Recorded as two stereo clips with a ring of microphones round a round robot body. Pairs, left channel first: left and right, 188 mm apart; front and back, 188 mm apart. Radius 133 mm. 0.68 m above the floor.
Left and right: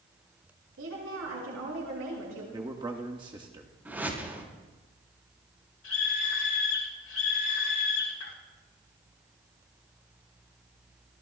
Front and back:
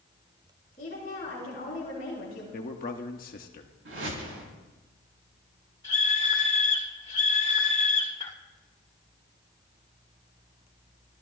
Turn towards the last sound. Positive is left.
turn(degrees=65)